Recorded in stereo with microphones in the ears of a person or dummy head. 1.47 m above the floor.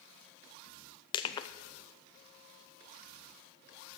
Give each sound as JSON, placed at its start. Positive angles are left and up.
{"t": 1.1, "sound": "crushing", "side_deg": 25, "distance_m": 0.7}